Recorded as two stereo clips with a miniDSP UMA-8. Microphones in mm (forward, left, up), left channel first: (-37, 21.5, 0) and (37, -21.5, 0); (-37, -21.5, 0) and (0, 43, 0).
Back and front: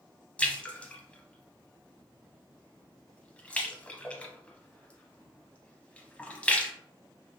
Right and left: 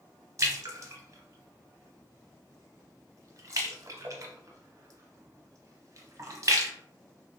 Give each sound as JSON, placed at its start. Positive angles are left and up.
{"t": 0.4, "sound": "a splash", "azimuth_deg": 80, "distance_m": 0.6}